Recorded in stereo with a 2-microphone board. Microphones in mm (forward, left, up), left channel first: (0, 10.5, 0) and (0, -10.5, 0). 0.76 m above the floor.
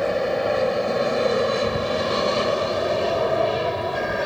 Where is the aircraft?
5° left (ahead or behind); by 4.3 s centre (ahead or behind).